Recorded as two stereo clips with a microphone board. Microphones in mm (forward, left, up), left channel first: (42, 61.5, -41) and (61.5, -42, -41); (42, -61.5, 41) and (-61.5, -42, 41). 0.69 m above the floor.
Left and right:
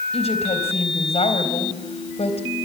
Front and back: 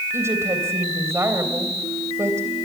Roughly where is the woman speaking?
Left.